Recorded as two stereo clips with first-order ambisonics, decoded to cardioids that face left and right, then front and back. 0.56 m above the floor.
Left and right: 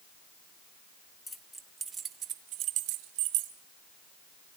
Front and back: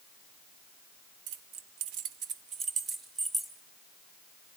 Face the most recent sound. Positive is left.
turn(degrees=-100)